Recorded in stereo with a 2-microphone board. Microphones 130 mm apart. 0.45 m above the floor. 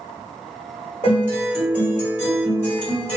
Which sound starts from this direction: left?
A guitar, at 1.0 s.